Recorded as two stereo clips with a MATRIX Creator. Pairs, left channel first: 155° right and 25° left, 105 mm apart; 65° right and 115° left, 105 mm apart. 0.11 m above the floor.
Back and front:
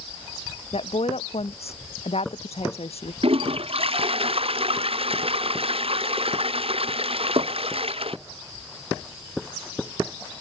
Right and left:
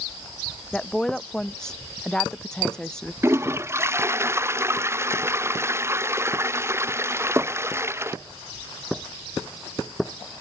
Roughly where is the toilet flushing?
Ahead left.